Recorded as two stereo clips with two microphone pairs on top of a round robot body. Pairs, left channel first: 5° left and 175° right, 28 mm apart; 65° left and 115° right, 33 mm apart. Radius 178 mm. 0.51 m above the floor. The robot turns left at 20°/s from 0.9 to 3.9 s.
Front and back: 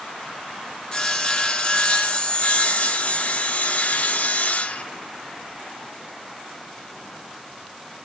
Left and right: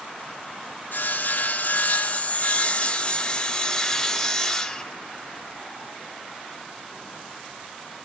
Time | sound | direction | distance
0.9 | sawing | 50° left | 1.3 m